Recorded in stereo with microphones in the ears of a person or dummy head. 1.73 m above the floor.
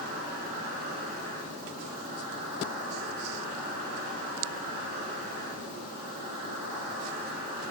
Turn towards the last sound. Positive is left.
turn(degrees=-45)  # may be behind; listen again after turning